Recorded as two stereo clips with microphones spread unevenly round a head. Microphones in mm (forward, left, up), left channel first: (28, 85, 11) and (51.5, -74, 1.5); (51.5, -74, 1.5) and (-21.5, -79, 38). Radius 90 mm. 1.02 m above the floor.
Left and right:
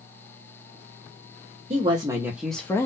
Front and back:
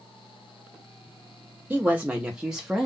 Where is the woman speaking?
75° right, 0.9 m; by 2.9 s 40° left, 0.8 m.